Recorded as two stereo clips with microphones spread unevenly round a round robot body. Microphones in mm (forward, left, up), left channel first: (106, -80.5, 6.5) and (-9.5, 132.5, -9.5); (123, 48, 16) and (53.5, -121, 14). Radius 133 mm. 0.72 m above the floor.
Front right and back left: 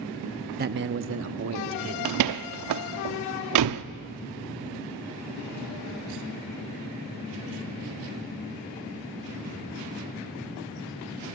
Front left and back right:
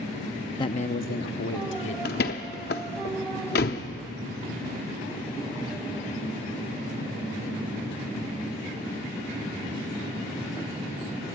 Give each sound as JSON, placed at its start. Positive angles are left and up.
{"t": 0.6, "sound": "a man speaking", "azimuth_deg": 125, "distance_m": 0.6}
{"t": 2.0, "sound": "a door slam", "azimuth_deg": 120, "distance_m": 0.6}